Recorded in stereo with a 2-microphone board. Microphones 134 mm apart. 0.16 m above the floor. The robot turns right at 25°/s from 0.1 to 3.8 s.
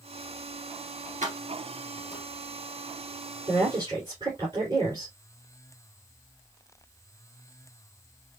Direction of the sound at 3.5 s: 40° right (ahead or behind).